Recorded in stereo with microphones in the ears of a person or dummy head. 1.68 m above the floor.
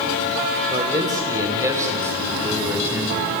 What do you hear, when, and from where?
0.7 s a man speaking: 20° right (ahead or behind), 5 m; by 3.3 s 10° right (ahead or behind), 6.5 m